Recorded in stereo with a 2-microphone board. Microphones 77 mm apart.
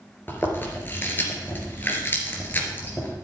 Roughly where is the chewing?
Left.